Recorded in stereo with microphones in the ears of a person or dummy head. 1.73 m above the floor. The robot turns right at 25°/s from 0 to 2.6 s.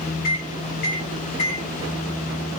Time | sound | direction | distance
0.2 | a microwave | 60° left (ahead or behind) | 1.9 m